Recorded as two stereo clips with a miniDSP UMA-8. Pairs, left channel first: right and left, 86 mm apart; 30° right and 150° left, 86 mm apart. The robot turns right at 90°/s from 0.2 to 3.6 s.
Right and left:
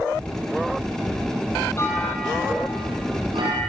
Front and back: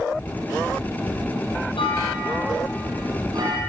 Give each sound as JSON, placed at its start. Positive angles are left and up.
{"t": 1.8, "sound": "a clunk", "azimuth_deg": -35, "distance_m": 7.0}